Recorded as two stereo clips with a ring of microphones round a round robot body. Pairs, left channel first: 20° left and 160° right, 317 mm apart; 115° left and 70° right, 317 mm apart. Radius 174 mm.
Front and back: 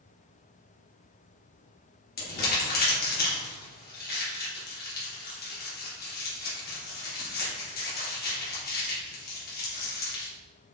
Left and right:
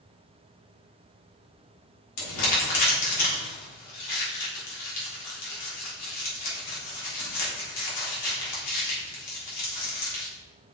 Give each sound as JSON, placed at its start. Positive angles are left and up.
{"t": 2.2, "sound": "crumpling", "azimuth_deg": 85, "distance_m": 3.5}